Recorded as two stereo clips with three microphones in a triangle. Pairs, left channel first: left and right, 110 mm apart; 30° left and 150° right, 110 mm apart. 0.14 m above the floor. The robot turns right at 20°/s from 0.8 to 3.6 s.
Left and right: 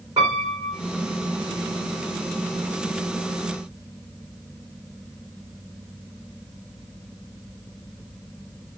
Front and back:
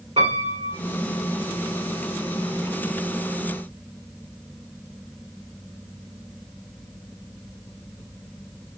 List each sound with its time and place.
0.2 s a piano: 140° right, 2.5 m